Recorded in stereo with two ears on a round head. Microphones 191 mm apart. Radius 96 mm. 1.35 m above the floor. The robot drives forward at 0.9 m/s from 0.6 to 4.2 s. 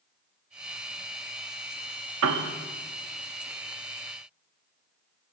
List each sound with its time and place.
2.2 s a piano: 70° right (ahead or behind), 1.4 m; by 2.5 s 65° right (ahead or behind), 1.5 m